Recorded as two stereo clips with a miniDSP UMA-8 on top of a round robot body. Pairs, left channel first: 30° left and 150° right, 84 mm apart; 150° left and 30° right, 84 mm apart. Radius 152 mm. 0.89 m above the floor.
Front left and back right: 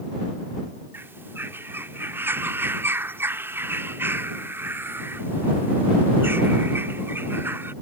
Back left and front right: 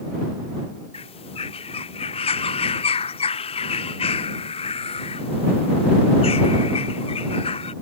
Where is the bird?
145° left.